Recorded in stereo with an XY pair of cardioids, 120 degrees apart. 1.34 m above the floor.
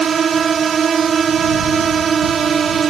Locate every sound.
0.0 s a drone: 40° right